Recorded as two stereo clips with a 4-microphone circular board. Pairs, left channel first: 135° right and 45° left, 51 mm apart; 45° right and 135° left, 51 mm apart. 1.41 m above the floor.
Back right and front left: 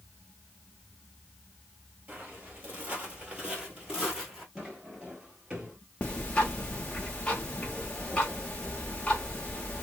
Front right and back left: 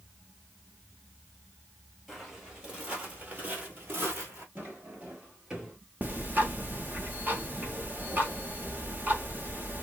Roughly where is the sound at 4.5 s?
Behind left.